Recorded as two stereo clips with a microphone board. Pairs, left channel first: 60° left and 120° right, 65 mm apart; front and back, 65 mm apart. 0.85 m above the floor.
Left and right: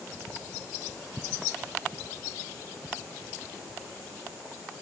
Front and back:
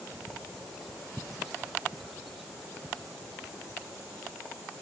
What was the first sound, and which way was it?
Only background noise.